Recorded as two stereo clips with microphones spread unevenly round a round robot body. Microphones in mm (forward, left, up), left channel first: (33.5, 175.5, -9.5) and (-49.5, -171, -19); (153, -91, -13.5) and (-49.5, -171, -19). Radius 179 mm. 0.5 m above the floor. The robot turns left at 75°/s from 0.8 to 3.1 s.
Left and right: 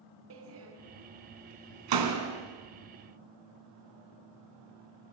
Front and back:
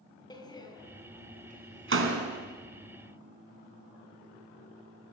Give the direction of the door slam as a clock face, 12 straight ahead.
2 o'clock.